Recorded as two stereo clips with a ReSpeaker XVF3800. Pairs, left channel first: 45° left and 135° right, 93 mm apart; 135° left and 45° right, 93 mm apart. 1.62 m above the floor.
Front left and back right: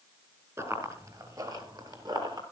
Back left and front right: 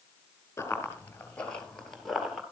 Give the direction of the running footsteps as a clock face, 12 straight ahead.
6 o'clock.